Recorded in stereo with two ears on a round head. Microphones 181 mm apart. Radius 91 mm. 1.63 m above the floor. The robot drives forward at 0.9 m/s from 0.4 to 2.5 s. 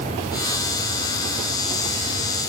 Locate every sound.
Only background noise.